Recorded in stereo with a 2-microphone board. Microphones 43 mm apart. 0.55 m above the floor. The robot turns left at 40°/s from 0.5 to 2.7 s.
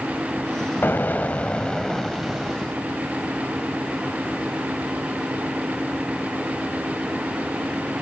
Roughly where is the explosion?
Ahead left.